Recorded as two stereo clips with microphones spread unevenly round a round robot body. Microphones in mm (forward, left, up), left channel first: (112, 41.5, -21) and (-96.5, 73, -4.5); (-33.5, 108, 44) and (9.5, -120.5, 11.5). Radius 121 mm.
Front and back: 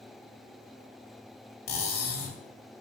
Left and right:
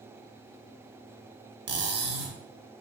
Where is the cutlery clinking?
55° right, 0.9 m.